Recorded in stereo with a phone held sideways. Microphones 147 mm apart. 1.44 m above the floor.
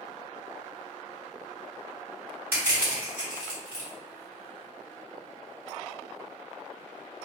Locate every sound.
2.5 s crushing: 15° right (ahead or behind), 1.9 m